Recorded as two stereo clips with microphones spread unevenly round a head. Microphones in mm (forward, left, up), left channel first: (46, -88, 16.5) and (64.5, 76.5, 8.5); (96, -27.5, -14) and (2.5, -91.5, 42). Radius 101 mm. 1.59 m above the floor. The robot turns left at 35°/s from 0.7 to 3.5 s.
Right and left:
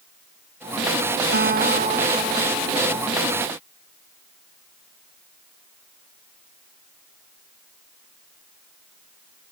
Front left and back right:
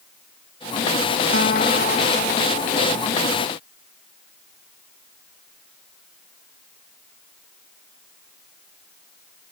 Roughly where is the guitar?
Ahead left.